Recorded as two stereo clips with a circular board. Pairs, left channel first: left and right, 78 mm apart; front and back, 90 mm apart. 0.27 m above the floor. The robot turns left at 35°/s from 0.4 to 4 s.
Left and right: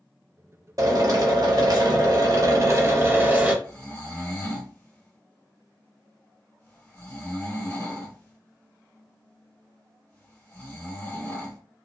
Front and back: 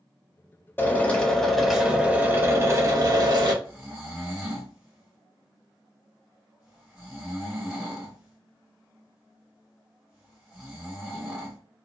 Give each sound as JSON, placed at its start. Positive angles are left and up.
{"t": 0.8, "sound": "a drill", "azimuth_deg": -60, "distance_m": 0.7}
{"t": 3.6, "sound": "snoring", "azimuth_deg": 130, "distance_m": 1.2}